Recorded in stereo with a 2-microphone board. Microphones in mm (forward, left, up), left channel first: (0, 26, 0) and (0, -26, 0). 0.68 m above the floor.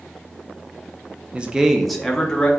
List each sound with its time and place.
1.3 s a man speaking: 25° right (ahead or behind), 0.5 m; by 2.5 s 15° left (ahead or behind), 0.9 m